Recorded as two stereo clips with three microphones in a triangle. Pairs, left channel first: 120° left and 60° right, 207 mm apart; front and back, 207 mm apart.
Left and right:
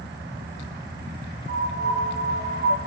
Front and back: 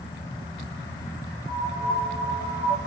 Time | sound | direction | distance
1.5 | a piano | 10° right | 0.9 m